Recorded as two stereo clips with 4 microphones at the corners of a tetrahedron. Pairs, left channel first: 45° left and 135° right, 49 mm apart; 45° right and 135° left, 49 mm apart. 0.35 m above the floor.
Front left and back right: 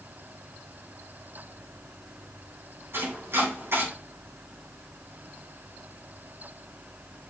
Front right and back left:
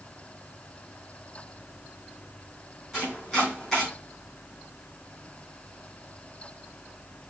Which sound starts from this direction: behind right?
Chopping, at 2.9 s.